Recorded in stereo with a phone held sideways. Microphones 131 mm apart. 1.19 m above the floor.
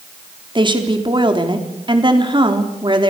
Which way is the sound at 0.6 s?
40° right (ahead or behind).